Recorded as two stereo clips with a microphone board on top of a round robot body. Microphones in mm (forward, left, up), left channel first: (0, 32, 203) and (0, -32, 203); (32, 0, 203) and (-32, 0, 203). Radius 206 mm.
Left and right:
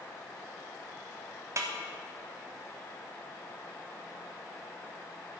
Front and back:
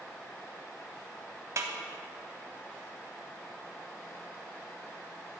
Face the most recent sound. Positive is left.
turn(degrees=-135)